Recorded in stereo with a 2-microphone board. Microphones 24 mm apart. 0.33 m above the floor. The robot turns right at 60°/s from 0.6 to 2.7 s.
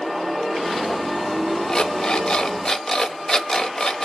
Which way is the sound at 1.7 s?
65° left.